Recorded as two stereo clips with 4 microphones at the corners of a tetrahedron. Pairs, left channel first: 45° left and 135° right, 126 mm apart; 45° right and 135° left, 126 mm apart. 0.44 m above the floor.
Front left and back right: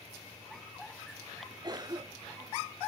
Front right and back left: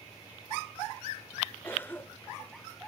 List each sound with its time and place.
1.6 s a cough: 105° right, 0.9 m